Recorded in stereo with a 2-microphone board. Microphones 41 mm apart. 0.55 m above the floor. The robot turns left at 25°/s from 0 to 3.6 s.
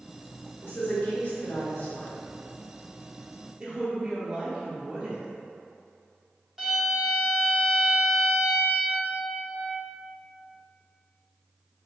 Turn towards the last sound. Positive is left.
turn(degrees=-15)  # may be behind; listen again after turning